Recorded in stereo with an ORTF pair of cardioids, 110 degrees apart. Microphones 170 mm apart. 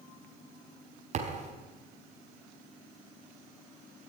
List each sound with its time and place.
1.1 s a thud: 45° right, 4.5 m